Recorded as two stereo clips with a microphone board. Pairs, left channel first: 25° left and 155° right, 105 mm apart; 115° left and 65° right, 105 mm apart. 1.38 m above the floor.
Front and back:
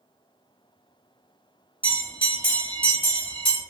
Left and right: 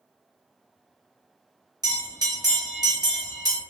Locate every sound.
1.8 s a bell: 15° right, 0.9 m